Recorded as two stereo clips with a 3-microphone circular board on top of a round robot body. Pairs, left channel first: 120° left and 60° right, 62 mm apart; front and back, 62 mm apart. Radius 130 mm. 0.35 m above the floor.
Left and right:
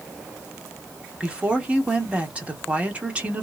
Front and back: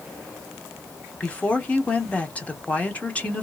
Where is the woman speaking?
30° right, 1.4 m.